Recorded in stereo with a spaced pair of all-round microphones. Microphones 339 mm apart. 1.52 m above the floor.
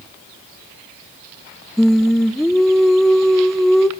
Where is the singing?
Centre (ahead or behind), 0.5 m.